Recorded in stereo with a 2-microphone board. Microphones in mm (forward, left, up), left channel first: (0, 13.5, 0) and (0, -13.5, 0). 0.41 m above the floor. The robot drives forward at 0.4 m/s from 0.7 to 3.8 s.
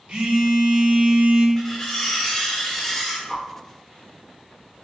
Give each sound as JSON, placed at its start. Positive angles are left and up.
{"t": 0.1, "sound": "a phone buzzing", "side_deg": -45, "distance_m": 0.7}
{"t": 1.6, "sound": "cutlery clinking", "side_deg": 10, "distance_m": 0.7}
{"t": 3.3, "sound": "a whoosh", "side_deg": 15, "distance_m": 0.6}